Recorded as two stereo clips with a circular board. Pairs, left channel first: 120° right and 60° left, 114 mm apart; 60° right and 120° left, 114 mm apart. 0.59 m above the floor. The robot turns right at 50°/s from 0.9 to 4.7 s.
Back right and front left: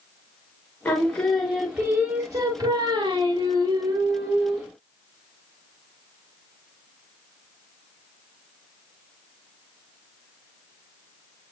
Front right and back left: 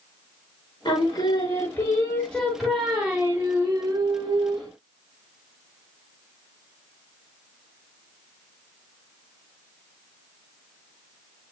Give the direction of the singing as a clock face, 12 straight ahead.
2 o'clock.